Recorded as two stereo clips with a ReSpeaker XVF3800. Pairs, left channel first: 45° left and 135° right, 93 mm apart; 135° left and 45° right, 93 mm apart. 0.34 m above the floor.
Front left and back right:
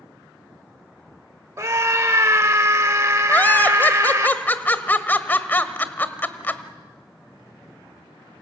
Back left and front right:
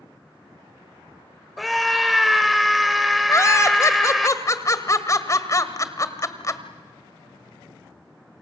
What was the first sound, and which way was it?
A scream, 135° right.